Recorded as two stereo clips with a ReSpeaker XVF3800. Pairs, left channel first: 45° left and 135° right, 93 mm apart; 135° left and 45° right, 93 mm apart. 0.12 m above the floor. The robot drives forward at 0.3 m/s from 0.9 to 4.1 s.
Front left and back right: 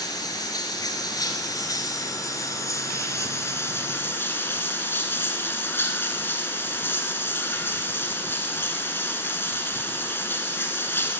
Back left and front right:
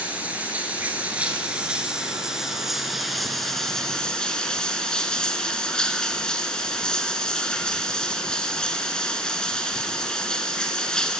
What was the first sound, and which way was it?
Running water, 25° left.